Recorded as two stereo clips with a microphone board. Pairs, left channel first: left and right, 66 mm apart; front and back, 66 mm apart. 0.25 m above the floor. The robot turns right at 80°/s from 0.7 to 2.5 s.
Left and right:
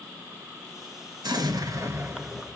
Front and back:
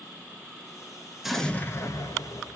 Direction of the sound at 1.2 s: 95° right.